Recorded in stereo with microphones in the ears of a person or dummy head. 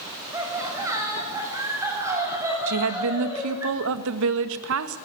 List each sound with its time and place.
0.3 s laughter: 15° right (ahead or behind), 6.5 m
2.7 s a woman speaking: 75° right (ahead or behind), 1.7 m